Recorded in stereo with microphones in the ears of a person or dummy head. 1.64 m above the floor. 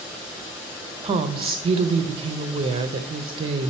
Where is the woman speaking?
30° right (ahead or behind), 0.5 m.